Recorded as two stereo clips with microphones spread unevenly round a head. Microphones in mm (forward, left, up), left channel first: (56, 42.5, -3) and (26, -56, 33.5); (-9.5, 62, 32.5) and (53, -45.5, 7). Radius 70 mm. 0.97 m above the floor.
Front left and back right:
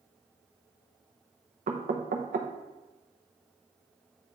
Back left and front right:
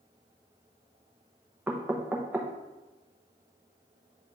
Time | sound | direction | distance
1.7 | knocking | 125° right | 0.7 m